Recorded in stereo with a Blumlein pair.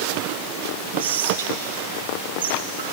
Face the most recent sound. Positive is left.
turn(degrees=-60)